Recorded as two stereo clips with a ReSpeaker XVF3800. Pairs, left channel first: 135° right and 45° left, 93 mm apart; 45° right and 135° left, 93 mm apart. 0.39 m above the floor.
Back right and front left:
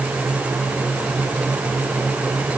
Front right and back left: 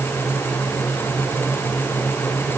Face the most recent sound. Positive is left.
No sound to turn to.